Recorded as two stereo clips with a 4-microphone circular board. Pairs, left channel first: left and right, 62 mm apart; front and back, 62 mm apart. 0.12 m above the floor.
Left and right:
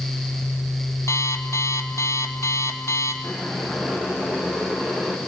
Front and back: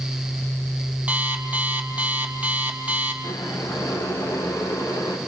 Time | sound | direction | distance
1.1 | an alarm clock | 120° left | 1.5 m
3.2 | boiling | 15° right | 5 m